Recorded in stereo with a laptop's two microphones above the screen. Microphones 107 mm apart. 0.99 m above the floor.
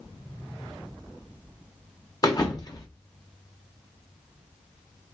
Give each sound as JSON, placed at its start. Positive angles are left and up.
{"t": 2.2, "sound": "a thud", "side_deg": 35, "distance_m": 0.9}